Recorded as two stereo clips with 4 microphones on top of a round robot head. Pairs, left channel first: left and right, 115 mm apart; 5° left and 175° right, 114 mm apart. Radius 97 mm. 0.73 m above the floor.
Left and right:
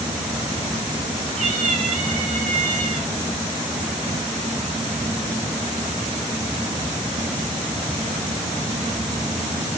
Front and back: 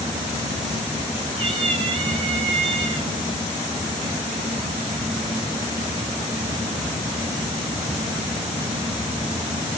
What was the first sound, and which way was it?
A cat meowing, 125° right.